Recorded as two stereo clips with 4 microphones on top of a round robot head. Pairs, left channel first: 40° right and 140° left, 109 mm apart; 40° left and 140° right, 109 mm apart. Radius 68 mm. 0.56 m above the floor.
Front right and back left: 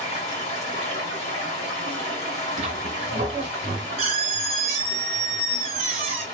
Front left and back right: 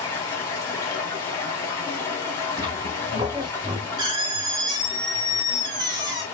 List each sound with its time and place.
0.0 s running water: 25° right, 1.5 m
2.6 s a squeak: 170° left, 0.6 m